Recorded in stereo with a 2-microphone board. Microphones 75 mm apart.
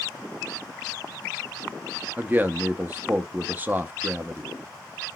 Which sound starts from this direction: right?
A man speaking, at 2.2 s.